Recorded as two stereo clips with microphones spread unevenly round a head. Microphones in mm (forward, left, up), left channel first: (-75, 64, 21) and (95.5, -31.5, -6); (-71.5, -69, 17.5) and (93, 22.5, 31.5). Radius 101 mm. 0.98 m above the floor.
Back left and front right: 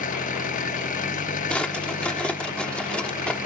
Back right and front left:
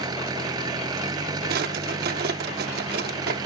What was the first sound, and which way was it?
An engine running, 100° left.